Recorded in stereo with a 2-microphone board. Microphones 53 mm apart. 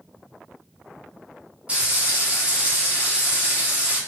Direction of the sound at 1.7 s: 25° right (ahead or behind).